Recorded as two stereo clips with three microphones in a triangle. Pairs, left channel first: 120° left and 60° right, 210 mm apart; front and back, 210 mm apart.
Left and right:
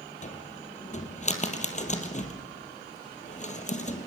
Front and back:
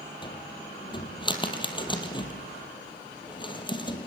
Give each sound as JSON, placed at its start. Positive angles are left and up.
{"t": 0.2, "sound": "a cupboard door", "azimuth_deg": 65, "distance_m": 3.0}